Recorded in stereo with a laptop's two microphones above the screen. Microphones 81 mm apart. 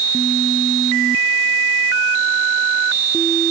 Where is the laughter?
No laughter in this recording.